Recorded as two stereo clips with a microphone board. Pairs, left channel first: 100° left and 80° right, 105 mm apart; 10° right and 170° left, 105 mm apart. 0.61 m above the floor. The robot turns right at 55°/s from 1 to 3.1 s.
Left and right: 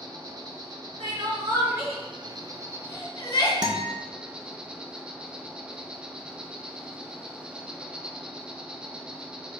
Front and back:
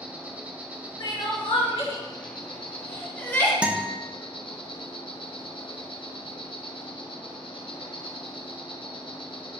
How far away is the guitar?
About 0.6 m.